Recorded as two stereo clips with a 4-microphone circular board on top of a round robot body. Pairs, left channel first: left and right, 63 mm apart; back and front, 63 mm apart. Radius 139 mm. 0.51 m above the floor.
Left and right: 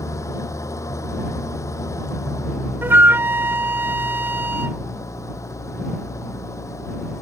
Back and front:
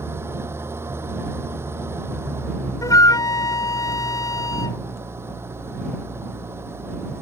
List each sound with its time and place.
0.0 s an engine running: 50° left
2.8 s a flute: 150° right